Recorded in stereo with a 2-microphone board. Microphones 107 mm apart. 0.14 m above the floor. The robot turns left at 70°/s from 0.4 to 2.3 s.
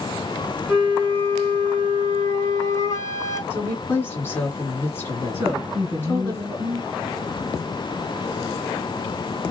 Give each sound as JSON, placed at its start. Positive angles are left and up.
{"t": 0.7, "sound": "a flute", "azimuth_deg": 175, "distance_m": 1.3}
{"t": 3.5, "sound": "a woman speaking", "side_deg": 20, "distance_m": 1.7}
{"t": 5.3, "sound": "a woman speaking", "side_deg": -20, "distance_m": 1.2}